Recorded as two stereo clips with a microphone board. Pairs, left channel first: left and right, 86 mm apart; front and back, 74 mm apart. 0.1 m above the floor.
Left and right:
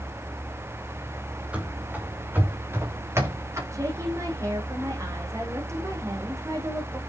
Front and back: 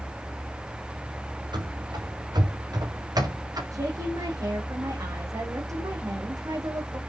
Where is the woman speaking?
140° right, 6 m.